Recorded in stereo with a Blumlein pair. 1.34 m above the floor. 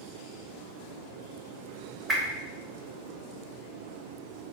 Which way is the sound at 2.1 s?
15° right.